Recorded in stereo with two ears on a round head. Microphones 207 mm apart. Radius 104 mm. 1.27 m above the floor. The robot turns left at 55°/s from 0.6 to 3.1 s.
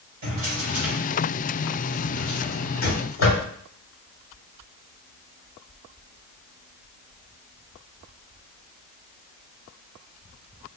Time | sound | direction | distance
0.2 | a drawer | 45° right (ahead or behind) | 1.9 m